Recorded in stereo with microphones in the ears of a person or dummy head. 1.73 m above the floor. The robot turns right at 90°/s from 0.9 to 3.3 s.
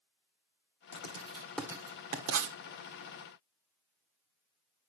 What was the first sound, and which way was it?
Writing, 60° left (ahead or behind).